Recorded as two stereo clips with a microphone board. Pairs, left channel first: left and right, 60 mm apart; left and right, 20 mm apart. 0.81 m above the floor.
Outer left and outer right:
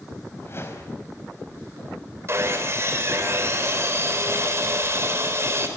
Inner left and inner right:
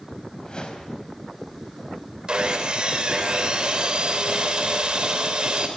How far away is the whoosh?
About 4 m.